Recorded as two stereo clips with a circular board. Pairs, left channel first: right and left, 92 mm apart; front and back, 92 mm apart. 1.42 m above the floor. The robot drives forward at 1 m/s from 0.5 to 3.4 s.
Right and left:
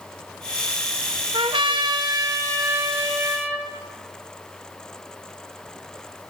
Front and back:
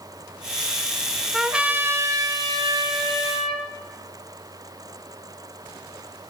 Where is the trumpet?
90° left, 1.1 m; by 3.7 s 155° left, 2.5 m.